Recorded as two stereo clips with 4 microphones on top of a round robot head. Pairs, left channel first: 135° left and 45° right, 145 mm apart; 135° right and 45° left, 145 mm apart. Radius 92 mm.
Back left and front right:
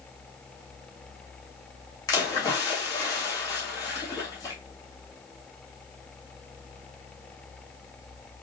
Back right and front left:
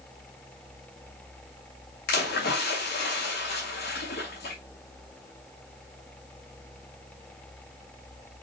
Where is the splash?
160° right, 2.5 m.